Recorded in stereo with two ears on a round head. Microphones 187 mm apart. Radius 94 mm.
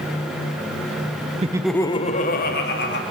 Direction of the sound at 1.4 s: 30° right (ahead or behind).